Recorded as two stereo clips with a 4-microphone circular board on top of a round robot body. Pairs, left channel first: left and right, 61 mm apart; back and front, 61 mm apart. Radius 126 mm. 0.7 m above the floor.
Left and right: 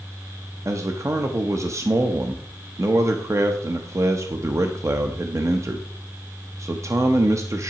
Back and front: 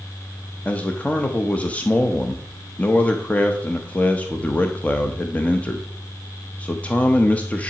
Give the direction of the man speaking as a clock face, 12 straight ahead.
4 o'clock.